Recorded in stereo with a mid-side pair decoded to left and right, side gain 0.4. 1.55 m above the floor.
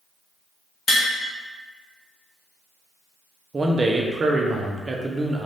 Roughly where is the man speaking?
Ahead right.